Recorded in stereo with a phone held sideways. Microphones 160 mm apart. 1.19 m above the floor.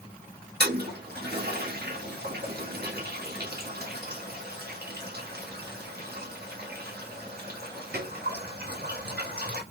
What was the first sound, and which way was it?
A toilet flushing, 75° right (ahead or behind).